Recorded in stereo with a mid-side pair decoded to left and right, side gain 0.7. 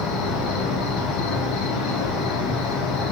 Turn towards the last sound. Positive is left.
turn(degrees=55)